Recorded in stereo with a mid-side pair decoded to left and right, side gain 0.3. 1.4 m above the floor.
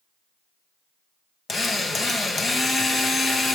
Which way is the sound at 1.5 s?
60° left.